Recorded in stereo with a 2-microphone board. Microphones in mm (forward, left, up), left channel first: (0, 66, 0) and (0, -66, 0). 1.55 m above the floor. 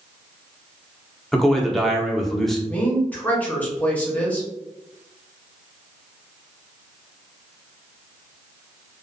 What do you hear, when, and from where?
1.3 s a man speaking: 5° left (ahead or behind), 0.6 m
2.7 s a woman speaking: 10° left (ahead or behind), 0.8 m